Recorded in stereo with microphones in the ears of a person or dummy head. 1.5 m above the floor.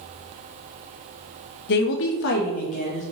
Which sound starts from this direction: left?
A woman speaking, at 1.7 s.